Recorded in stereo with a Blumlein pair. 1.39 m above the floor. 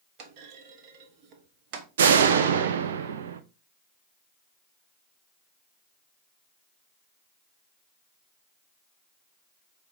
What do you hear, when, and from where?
0.2 s a clunk: 40° right, 1.3 m
2.0 s a door slam: 60° right, 0.8 m